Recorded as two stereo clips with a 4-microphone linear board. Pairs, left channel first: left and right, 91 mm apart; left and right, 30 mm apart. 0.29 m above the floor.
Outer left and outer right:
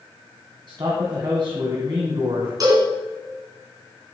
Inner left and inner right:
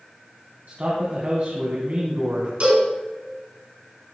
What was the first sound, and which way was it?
A man speaking, 55° right (ahead or behind).